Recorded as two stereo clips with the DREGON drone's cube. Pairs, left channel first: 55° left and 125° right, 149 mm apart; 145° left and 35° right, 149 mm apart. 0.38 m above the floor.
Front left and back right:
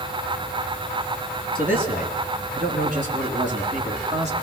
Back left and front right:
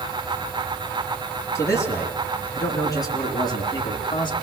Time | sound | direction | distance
1.6 | a man speaking | 145° right | 4 m